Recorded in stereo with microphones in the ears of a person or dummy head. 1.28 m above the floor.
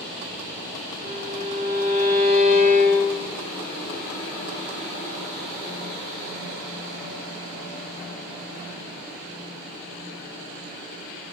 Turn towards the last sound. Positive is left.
turn(degrees=-40)  # may be behind; listen again after turning